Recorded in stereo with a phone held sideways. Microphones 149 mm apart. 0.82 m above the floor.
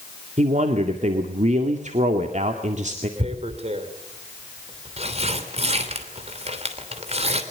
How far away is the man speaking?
About 2 m.